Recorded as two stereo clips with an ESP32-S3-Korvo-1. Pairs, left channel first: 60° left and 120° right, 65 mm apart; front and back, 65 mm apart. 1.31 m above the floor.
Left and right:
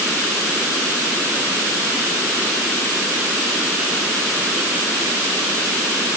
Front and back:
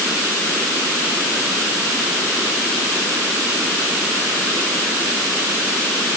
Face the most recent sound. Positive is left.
No sound to turn to.